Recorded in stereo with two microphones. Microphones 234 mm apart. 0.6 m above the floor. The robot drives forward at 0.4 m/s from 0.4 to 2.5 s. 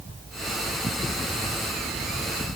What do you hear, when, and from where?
Only background noise.